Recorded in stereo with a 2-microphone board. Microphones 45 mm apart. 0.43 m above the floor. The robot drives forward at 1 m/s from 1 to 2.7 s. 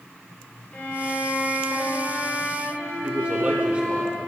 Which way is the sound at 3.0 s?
25° right (ahead or behind).